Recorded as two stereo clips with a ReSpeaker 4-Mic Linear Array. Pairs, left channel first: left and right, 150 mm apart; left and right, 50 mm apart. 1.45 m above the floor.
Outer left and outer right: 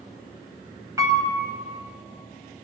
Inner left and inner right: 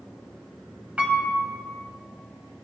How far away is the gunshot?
I don't hear a gunshot.